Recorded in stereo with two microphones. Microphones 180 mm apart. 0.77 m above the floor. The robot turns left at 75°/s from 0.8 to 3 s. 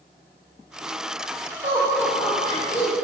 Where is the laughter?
40° right (ahead or behind), 1.8 m; by 2.9 s 55° left (ahead or behind), 1.8 m.